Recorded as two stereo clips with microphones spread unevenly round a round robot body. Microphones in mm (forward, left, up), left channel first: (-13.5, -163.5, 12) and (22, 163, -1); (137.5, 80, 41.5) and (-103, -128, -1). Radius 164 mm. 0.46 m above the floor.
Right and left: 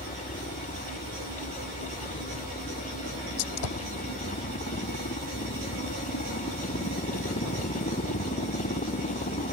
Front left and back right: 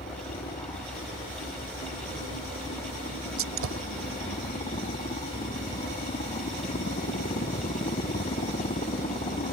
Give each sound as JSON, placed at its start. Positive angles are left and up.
{"t": 0.0, "sound": "a helicopter", "azimuth_deg": -30}
{"t": 3.4, "sound": "a gunshot", "azimuth_deg": -100}